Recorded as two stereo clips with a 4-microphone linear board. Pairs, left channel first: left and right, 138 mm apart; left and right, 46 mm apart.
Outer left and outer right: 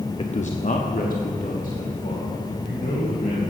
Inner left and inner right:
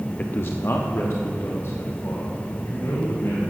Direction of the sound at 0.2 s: 40° left (ahead or behind).